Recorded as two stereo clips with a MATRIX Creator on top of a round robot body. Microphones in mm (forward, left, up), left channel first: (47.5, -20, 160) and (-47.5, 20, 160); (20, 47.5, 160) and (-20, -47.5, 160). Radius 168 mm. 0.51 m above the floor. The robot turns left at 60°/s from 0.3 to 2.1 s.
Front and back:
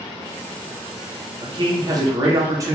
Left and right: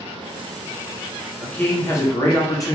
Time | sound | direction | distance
1.4 | a man speaking | 150° left | 1.0 m